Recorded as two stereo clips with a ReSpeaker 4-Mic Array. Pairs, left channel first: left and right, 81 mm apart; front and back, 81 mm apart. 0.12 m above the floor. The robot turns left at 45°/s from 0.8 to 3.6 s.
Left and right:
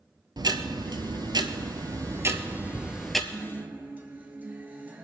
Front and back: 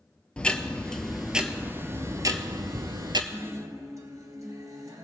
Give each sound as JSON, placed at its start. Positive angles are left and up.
{"t": 0.4, "sound": "ticking", "azimuth_deg": -75, "distance_m": 0.7}
{"t": 3.3, "sound": "a guitar", "azimuth_deg": -135, "distance_m": 1.6}